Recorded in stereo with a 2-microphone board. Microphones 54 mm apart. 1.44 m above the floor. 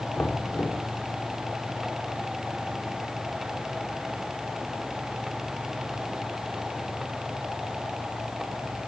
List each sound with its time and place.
0.2 s knocking: 50° left (ahead or behind), 2.5 m